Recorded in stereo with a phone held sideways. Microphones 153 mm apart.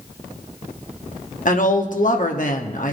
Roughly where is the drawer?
No drawer in this recording.